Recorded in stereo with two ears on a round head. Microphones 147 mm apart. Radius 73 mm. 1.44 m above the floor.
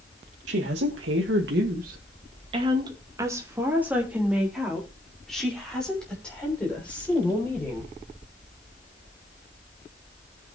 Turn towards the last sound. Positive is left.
turn(degrees=10)  # may be behind; listen again after turning